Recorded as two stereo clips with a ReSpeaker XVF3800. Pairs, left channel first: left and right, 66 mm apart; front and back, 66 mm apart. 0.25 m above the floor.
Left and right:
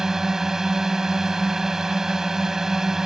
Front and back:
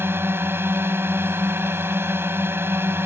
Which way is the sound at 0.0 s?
165° right.